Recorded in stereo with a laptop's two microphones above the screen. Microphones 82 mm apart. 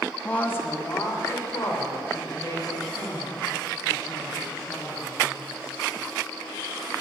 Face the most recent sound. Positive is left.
turn(degrees=55)  # may be behind; listen again after turning